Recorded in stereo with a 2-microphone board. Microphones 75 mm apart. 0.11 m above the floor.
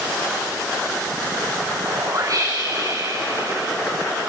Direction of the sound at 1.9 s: 50° right (ahead or behind).